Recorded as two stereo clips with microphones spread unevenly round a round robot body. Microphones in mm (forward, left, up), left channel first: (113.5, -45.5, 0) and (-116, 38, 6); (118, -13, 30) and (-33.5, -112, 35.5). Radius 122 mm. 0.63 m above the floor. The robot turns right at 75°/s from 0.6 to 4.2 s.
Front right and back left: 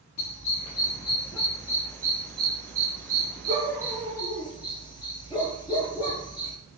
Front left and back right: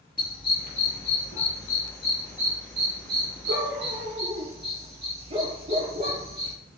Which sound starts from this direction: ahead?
A dog barking, at 0.2 s.